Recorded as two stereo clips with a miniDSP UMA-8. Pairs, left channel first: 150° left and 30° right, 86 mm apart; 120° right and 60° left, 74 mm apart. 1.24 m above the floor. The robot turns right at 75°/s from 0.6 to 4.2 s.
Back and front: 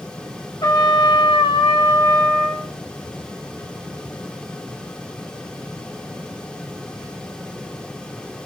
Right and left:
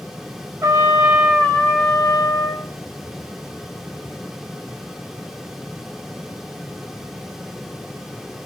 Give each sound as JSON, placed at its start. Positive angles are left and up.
{"t": 0.6, "sound": "a trumpet", "azimuth_deg": 110, "distance_m": 0.9}